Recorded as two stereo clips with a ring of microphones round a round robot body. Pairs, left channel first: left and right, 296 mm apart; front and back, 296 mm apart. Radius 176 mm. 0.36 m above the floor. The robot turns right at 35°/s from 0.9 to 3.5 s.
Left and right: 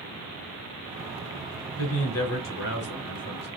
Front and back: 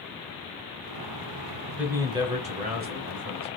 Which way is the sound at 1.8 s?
95° left.